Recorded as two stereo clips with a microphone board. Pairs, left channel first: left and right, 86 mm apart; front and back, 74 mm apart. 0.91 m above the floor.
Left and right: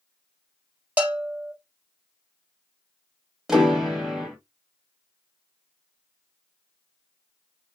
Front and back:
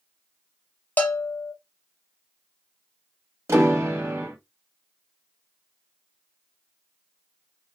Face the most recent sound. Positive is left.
turn(degrees=-170)